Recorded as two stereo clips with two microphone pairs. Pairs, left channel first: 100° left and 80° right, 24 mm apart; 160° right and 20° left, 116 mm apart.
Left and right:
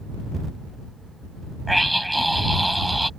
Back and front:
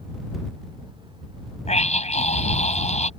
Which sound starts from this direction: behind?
A scream, at 1.7 s.